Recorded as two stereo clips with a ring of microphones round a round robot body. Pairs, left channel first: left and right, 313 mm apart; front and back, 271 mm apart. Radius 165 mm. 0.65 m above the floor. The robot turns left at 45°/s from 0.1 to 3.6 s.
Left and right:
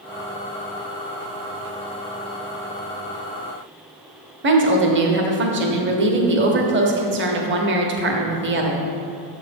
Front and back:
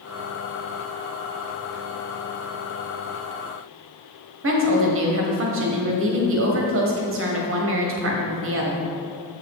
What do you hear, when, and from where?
4.4 s a woman speaking: 140° right, 1.0 m